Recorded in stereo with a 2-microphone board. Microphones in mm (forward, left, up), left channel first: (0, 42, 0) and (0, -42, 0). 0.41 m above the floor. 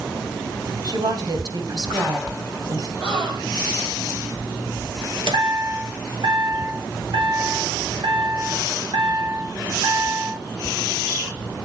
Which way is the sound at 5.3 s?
85° right.